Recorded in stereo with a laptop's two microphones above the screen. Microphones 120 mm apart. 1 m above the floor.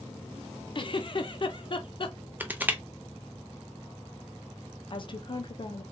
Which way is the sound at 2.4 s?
15° right (ahead or behind).